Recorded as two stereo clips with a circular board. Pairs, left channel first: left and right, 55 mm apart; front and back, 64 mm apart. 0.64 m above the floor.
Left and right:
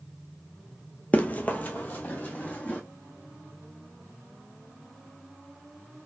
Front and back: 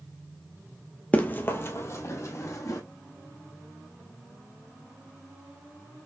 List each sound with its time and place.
1.1 s running footsteps: 50° left, 0.7 m; by 2.8 s 30° left, 1.6 m